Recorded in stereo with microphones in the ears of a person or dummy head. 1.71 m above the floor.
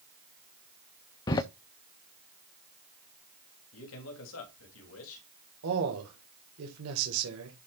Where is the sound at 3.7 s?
80° left, 3 m.